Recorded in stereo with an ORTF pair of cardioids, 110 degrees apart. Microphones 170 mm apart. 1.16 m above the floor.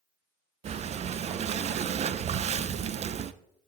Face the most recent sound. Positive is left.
turn(degrees=-40)